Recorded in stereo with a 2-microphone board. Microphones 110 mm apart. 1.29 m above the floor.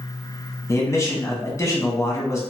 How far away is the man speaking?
About 0.9 m.